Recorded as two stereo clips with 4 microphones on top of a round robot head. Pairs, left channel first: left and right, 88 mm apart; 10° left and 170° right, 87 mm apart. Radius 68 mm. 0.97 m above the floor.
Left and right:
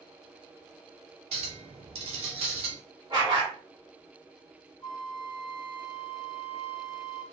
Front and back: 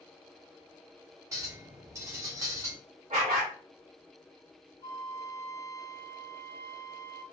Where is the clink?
105° right, 0.6 m.